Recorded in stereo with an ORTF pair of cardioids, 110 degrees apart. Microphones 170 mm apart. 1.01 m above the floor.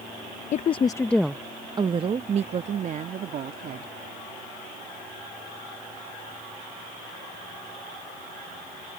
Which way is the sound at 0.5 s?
45° left.